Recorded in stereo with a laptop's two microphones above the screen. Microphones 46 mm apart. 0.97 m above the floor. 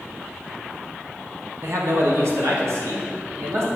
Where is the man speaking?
55° right (ahead or behind), 0.9 m; by 3.7 s 75° right (ahead or behind), 2.0 m.